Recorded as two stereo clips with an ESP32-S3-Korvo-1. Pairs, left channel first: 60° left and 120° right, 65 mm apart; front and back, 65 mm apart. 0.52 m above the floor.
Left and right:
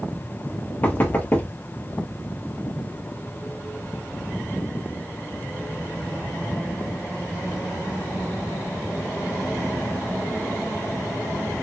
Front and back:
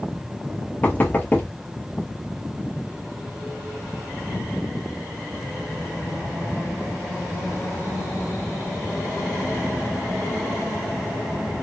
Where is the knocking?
30° left, 0.6 m.